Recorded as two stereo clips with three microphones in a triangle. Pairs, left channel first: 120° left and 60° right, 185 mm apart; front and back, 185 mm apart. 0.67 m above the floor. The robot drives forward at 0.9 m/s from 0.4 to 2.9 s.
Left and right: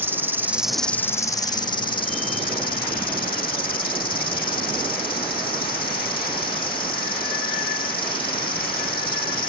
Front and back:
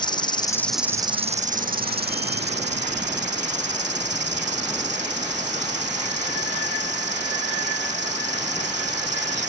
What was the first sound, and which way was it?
An insect, straight ahead.